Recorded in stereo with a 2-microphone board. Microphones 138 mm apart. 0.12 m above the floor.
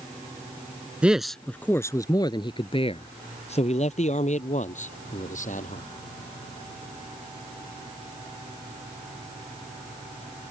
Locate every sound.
1.0 s a man speaking: 10° right (ahead or behind); by 5.8 s 60° left (ahead or behind)